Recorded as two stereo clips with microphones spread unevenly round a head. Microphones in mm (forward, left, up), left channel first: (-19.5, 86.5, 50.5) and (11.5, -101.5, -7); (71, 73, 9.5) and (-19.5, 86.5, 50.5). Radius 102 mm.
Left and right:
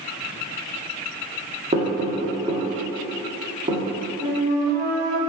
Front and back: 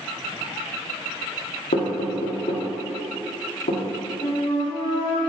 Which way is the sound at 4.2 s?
25° left.